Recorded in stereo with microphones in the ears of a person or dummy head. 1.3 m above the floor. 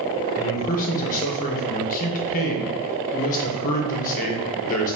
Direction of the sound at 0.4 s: 45° left (ahead or behind).